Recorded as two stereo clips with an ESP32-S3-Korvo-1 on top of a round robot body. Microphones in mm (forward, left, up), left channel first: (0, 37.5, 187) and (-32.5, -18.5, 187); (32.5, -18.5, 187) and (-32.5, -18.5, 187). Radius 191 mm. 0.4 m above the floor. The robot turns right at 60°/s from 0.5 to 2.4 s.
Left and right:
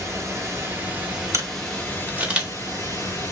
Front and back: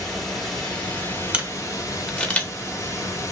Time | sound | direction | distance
0.0 | running water | 90° right | 1.7 m
1.3 | a camera shutter | 120° right | 1.1 m